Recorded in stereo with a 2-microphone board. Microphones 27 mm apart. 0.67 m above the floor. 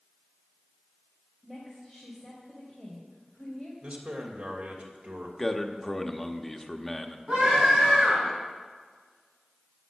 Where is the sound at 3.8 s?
70° right (ahead or behind), 2.5 m.